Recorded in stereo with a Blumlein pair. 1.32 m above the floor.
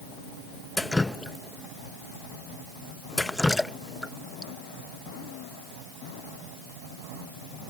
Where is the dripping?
5° left.